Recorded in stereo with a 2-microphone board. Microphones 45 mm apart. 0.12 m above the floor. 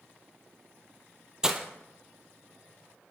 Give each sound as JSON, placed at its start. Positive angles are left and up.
{"t": 1.4, "sound": "breaking glass", "side_deg": -15, "distance_m": 0.8}